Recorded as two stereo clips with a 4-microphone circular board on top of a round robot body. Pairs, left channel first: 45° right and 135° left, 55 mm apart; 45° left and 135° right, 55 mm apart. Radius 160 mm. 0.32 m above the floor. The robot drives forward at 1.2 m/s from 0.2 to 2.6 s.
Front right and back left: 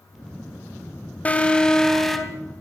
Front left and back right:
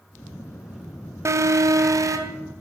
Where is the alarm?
110° right, 2 m; by 2.4 s 135° right, 3 m.